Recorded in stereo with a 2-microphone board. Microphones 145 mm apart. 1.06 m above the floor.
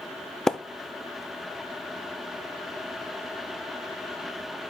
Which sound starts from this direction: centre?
A splash, at 0.5 s.